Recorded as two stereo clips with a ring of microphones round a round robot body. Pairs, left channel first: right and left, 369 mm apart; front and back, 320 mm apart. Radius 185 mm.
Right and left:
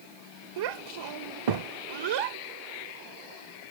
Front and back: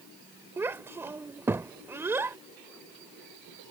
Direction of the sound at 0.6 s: 100° left.